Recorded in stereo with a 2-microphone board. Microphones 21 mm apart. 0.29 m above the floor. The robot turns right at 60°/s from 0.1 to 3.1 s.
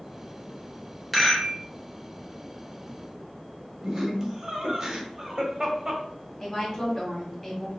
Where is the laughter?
30° right (ahead or behind), 1.5 m.